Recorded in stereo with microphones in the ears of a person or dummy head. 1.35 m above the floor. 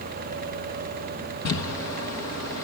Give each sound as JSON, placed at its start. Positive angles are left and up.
{"t": 1.4, "sound": "crumpling", "side_deg": 75, "distance_m": 1.3}